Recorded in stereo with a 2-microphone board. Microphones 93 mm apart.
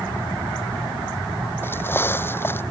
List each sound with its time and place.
1.6 s footsteps: 25° left (ahead or behind)